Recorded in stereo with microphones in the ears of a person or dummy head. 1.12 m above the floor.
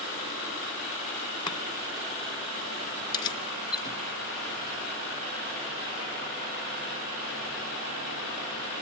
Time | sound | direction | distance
1.5 | chopping | 25° left (ahead or behind) | 1.9 m
3.1 | keys jangling | 25° left (ahead or behind) | 2.5 m